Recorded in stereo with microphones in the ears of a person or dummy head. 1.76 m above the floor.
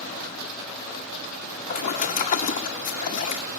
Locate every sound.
1.7 s a splash: 35° left (ahead or behind), 2 m